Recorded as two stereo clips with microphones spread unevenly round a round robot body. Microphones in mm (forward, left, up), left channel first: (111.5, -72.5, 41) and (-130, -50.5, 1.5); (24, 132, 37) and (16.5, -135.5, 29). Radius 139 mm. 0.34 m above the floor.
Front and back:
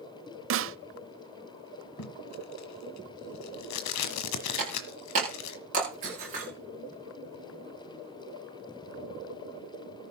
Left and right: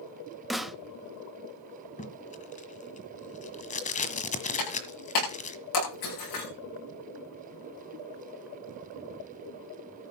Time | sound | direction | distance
0.5 | a snare drum | straight behind | 0.6 m
2.0 | tape being pulled | 25° left | 1.6 m
4.6 | breaking glass | 110° left | 9.5 m